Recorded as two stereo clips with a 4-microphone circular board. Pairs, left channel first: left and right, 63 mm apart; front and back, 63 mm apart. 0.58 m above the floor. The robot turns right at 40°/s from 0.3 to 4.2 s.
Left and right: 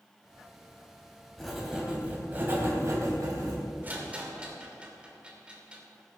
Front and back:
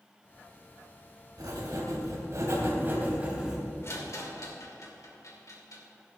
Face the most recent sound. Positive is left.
turn(degrees=-20)